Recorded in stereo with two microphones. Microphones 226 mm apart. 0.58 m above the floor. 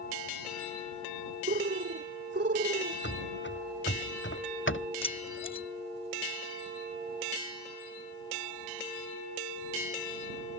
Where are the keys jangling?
20° left (ahead or behind).